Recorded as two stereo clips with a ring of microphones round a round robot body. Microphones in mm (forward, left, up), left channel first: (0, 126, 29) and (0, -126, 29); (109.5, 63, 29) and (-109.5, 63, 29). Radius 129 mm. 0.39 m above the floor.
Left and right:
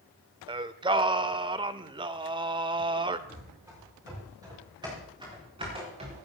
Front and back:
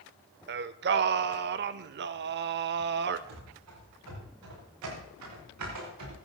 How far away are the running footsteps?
About 8.5 m.